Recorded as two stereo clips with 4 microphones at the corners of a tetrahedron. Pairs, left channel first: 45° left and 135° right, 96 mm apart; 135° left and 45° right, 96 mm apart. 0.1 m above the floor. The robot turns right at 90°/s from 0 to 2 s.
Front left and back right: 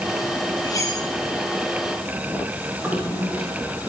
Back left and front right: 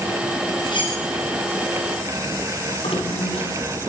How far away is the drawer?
About 8.5 m.